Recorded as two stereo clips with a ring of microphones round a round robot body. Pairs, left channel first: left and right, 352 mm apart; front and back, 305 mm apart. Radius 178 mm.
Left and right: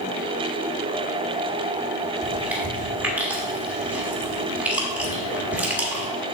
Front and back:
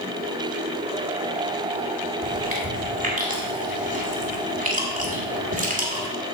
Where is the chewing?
170° right, 1.4 m.